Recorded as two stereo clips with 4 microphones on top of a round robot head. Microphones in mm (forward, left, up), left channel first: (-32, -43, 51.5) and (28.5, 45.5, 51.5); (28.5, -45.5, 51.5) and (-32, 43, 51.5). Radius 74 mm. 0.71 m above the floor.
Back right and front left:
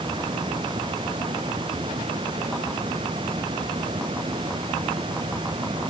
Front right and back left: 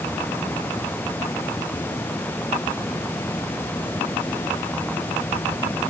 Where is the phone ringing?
I don't hear a phone ringing.